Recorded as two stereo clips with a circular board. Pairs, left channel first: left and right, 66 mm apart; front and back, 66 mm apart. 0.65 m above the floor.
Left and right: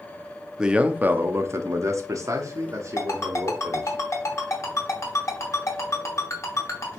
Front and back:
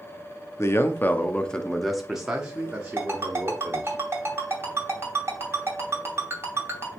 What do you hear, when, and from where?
0.6 s a man speaking: 15° right, 0.7 m; by 4.0 s 120° right, 1.7 m
3.0 s a ringtone: 130° left, 2.5 m